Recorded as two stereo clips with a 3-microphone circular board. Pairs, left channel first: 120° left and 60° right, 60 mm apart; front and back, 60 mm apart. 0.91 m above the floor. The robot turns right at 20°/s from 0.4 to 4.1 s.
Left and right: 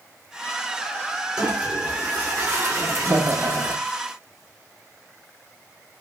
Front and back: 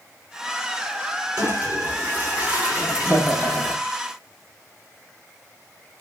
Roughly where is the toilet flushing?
Behind right.